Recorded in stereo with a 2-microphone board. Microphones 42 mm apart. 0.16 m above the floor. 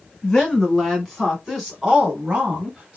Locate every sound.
0.2 s a woman speaking: 15° left (ahead or behind), 1.5 m; by 3.0 s 25° right (ahead or behind), 1.5 m